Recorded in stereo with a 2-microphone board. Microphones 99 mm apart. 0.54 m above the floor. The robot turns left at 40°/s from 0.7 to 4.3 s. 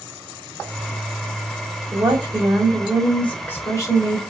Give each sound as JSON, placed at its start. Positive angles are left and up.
{"t": 1.9, "sound": "a woman speaking", "azimuth_deg": -145, "distance_m": 1.8}